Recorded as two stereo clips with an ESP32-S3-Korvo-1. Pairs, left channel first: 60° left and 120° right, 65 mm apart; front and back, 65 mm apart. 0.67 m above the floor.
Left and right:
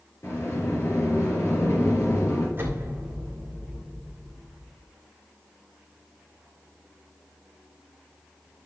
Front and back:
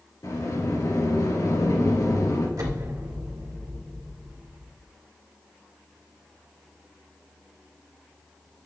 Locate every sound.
0.2 s a sliding door: 20° left, 3 m
2.6 s an explosion: 175° right, 2.5 m